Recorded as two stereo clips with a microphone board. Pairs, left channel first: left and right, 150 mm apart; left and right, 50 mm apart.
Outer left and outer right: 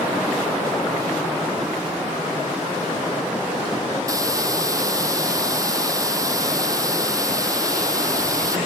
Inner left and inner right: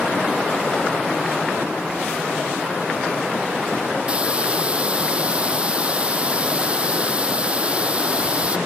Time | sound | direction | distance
4.1 | a hiss | 25° right (ahead or behind) | ?